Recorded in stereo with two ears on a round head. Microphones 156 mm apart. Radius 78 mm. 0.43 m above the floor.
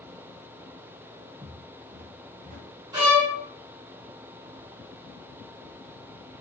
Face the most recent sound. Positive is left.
turn(degrees=-20)  # may be behind; listen again after turning